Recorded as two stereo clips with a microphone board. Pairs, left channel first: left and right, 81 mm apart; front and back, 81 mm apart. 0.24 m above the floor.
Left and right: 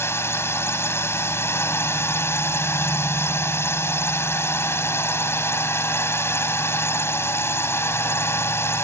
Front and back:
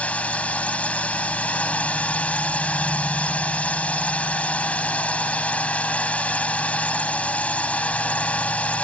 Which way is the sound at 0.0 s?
60° left.